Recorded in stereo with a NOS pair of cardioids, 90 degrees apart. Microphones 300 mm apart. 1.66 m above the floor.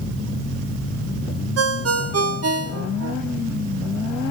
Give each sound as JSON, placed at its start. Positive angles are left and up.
{"t": 1.6, "sound": "a ringtone", "azimuth_deg": -55, "distance_m": 1.6}